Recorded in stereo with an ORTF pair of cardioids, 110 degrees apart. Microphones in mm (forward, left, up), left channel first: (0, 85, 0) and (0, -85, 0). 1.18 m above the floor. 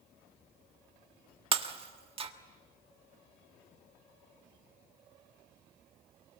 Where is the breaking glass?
35° right, 1.4 m.